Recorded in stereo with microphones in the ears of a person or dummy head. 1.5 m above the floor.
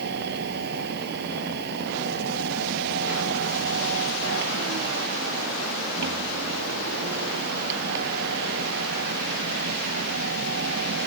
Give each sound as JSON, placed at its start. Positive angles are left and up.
{"t": 0.0, "sound": "a machine running", "side_deg": -55}